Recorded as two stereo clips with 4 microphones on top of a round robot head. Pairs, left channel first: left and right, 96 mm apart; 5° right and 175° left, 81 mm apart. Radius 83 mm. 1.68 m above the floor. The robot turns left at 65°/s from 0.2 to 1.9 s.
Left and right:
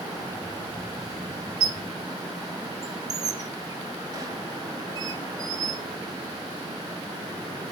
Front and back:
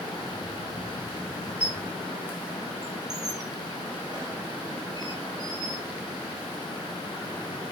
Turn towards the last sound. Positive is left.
turn(degrees=-125)